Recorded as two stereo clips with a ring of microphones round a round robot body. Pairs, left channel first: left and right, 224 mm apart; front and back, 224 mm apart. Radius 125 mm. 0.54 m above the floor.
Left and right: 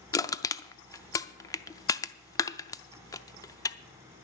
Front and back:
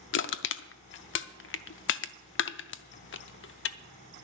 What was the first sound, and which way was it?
Crushing, 15° left.